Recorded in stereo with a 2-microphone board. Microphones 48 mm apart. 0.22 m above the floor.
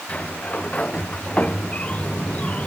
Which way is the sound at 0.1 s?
25° left (ahead or behind).